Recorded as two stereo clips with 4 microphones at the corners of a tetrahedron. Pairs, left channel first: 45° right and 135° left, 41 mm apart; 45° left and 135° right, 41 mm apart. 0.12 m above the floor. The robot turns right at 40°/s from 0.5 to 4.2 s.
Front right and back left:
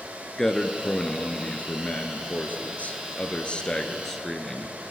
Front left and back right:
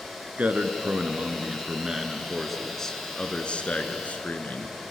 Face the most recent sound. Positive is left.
turn(degrees=30)